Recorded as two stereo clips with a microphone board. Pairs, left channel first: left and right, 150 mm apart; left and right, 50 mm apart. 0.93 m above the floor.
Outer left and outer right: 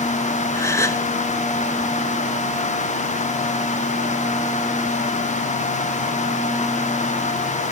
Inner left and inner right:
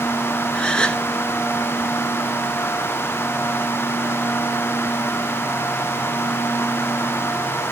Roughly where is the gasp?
Centre.